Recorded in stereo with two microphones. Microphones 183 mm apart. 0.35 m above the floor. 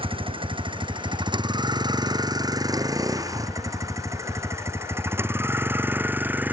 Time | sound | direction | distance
0.0 | a vehicle | 30° right (ahead or behind) | ?